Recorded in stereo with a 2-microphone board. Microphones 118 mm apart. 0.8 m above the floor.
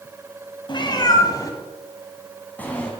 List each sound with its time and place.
0.7 s a cat meowing: 45° left (ahead or behind), 1.9 m; by 2.9 s 10° left (ahead or behind), 2.5 m